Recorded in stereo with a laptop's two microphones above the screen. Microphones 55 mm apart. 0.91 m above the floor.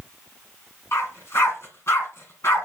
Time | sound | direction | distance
0.9 | a dog barking | 55° left (ahead or behind) | 2.5 m